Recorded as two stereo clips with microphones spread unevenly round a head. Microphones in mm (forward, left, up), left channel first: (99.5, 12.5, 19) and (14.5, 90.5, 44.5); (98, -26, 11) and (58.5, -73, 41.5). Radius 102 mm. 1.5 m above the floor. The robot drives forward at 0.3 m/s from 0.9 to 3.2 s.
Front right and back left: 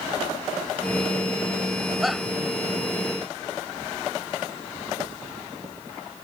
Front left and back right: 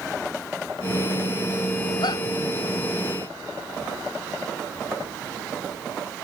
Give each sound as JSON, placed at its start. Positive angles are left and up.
{"t": 2.0, "sound": "a shout", "azimuth_deg": 50}